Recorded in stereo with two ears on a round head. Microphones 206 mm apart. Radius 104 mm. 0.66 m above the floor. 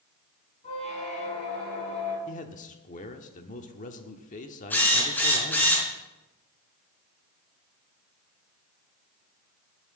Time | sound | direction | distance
0.6 | a squeak | 30° left (ahead or behind) | 5.5 m
2.3 | a man speaking | 35° left (ahead or behind) | 1.2 m
4.7 | a drill | 10° left (ahead or behind) | 4 m